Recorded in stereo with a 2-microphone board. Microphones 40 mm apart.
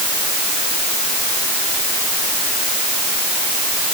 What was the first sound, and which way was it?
Only background noise.